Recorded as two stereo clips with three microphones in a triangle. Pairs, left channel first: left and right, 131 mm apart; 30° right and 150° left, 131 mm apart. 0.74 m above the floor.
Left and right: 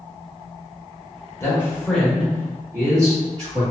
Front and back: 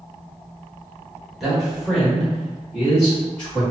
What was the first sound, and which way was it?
A man speaking, 60° left.